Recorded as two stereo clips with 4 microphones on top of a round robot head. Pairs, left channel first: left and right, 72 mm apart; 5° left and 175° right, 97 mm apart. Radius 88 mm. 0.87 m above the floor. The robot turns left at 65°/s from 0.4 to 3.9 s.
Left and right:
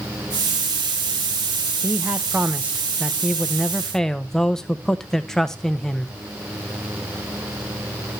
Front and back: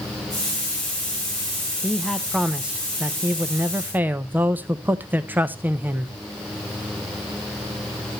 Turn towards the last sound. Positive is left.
turn(degrees=160)